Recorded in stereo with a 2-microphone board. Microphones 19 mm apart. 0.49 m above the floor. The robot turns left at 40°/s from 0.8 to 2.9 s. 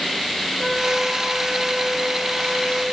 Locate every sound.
0.6 s a trumpet: 25° left, 7 m; by 2.8 s 55° right, 7 m